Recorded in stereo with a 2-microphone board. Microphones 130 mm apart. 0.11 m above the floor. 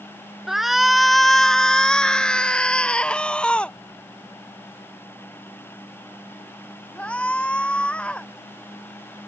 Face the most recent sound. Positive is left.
turn(degrees=10)  # may be behind; listen again after turning